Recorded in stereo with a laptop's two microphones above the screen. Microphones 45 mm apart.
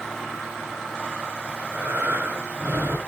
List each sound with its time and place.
1.5 s breathing: 65° right (ahead or behind), 3 m